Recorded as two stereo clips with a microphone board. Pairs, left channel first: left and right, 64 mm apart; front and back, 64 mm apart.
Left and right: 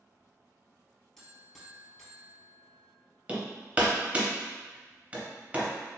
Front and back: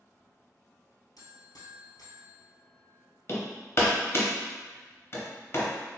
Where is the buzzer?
5° left, 1.2 m.